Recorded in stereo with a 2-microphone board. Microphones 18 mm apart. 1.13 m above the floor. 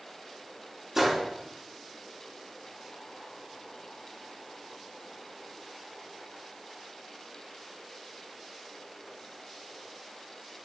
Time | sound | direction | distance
0.9 | a gunshot | 35° right (ahead or behind) | 6 m